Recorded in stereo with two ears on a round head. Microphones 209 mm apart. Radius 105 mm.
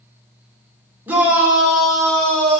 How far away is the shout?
About 2.5 m.